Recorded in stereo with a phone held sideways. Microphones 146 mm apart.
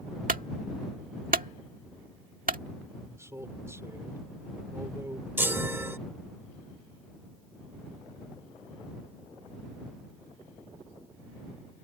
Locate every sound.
0.3 s a clunk: 80° right
3.0 s a man speaking: 20° right (ahead or behind)
5.4 s a chime: 15° right (ahead or behind)